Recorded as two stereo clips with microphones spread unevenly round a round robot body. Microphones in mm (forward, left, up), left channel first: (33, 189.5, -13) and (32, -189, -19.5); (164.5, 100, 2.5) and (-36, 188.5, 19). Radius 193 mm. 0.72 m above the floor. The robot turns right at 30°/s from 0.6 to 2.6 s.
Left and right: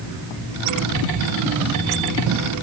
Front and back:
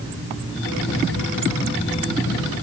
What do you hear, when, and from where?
Only background noise.